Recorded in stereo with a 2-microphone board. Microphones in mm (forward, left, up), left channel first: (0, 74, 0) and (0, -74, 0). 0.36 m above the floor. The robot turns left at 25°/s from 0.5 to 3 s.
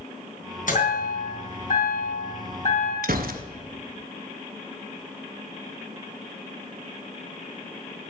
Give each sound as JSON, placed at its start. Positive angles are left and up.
{"t": 0.7, "sound": "a chime", "azimuth_deg": 110, "distance_m": 3.0}
{"t": 3.0, "sound": "a gunshot", "side_deg": -75, "distance_m": 0.7}